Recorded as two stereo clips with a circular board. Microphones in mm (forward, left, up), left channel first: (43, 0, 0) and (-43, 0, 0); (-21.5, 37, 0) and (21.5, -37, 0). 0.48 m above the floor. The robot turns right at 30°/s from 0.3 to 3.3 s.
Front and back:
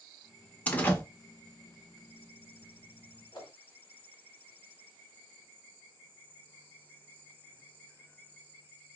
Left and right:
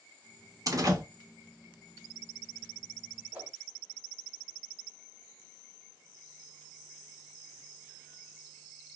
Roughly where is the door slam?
Ahead right.